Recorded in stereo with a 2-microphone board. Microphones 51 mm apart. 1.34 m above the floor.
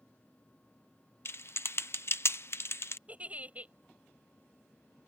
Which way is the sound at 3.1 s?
25° right (ahead or behind).